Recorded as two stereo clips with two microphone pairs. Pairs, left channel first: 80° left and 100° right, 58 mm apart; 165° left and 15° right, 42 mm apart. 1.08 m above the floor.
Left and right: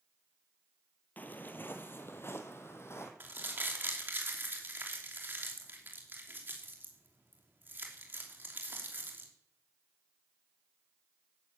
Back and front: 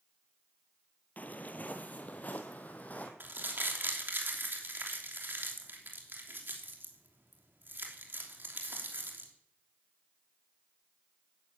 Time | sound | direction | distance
1.2 | footsteps | 130° left | 1.6 m
3.2 | crumpling | 50° right | 3 m